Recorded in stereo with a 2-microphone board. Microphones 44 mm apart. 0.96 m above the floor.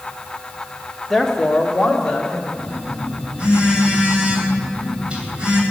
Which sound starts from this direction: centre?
A woman speaking, at 1.1 s.